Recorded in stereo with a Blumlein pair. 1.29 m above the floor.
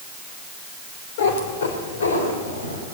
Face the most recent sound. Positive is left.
turn(degrees=75)